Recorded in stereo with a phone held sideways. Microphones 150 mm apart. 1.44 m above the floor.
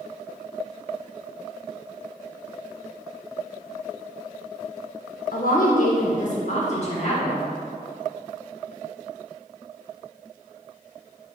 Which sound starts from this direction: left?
A woman speaking, at 5.3 s.